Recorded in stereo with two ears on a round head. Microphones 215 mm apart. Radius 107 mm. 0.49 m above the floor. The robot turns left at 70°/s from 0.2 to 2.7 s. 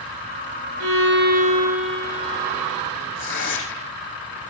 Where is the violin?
105° right, 6.5 m; by 2.8 s 125° left, 6.5 m.